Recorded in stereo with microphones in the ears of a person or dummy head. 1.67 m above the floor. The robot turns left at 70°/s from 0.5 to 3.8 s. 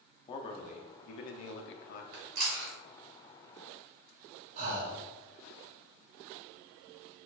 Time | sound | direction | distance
0.3 | a man speaking | 145° left | 0.7 m
2.1 | chewing | 45° right (ahead or behind) | 1.4 m
4.6 | breathing | 45° right (ahead or behind) | 0.8 m